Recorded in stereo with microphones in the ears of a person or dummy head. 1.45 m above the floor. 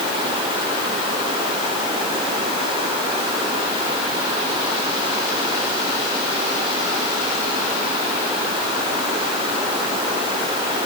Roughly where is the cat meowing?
No cat meowing in this recording.